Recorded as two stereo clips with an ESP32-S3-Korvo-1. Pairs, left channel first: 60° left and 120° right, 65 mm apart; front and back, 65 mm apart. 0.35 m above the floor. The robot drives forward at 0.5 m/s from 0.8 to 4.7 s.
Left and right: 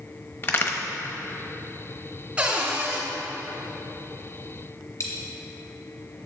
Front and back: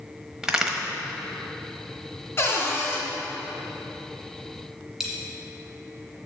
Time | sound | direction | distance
0.4 | a crack | 100° left | 1.0 m
2.4 | a cupboard door | 50° right | 2.0 m
5.0 | a dropped coin | 95° left | 2.0 m